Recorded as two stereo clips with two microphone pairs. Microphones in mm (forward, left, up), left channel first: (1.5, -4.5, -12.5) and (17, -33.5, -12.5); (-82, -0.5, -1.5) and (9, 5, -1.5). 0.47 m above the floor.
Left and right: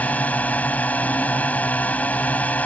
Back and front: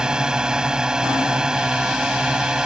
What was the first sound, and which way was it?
A drone, 85° left.